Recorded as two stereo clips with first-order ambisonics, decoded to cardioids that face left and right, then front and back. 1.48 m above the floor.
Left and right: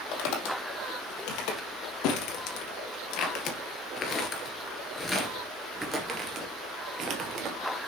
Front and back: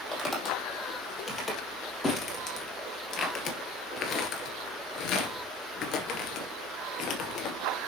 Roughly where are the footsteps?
Left.